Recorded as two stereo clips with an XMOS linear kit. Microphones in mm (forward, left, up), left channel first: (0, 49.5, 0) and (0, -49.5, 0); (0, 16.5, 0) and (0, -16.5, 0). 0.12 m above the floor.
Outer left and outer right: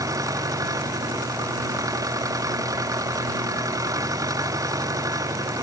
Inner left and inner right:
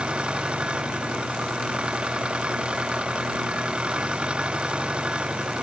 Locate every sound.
0.0 s an engine running: 35° right (ahead or behind)